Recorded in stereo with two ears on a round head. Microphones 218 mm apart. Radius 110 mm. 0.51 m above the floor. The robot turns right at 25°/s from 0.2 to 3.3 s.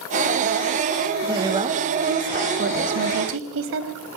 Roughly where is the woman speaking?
Behind.